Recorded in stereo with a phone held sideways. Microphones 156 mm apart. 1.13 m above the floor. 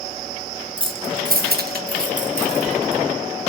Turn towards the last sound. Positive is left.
turn(degrees=-40)  # may be behind; listen again after turning